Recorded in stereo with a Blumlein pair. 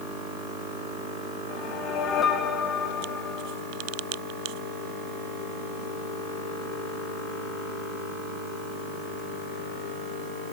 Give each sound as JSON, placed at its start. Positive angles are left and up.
{"t": 1.5, "sound": "a whoosh", "azimuth_deg": 30, "distance_m": 1.9}